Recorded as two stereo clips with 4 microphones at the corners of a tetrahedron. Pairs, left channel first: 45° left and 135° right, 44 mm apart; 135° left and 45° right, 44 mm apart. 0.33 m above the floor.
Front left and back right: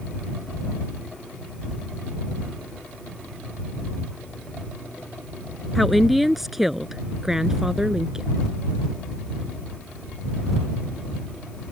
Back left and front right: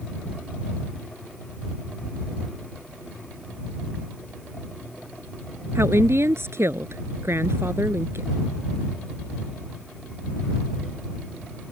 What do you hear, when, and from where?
5.8 s a woman speaking: 45° right; by 8.3 s 65° right